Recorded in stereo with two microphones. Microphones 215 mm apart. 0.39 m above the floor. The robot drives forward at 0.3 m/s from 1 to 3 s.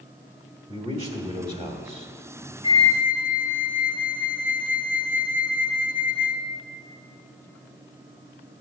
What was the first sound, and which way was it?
A man speaking, 25° right (ahead or behind).